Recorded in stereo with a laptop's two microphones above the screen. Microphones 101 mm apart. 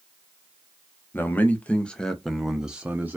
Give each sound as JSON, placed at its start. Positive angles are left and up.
{"t": 1.1, "sound": "a man speaking", "side_deg": 20, "distance_m": 1.0}